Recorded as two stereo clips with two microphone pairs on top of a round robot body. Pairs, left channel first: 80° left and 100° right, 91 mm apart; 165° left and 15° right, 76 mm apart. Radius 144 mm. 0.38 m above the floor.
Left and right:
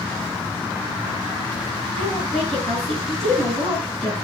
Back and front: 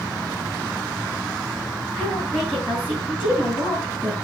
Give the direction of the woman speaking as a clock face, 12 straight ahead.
3 o'clock.